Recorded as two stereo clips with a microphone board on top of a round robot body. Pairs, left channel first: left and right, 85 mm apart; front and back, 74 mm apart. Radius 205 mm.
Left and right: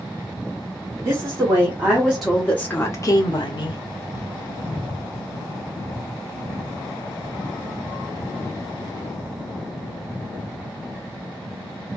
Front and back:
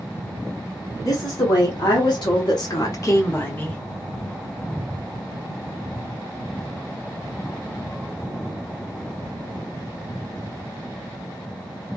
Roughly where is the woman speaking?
Ahead right.